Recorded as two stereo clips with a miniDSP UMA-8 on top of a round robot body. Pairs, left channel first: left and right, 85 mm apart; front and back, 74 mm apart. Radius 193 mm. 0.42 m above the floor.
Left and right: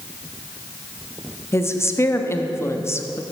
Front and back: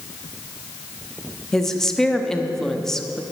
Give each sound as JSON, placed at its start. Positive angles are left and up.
{"t": 1.5, "sound": "a woman speaking", "azimuth_deg": 80, "distance_m": 1.4}